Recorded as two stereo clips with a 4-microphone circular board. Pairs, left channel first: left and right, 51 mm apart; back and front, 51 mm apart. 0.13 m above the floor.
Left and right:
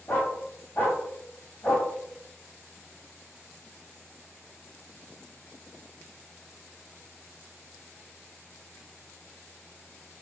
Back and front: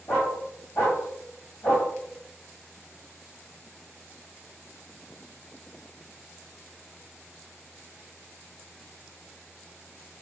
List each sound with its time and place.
0.1 s a dog barking: 145° left, 2 m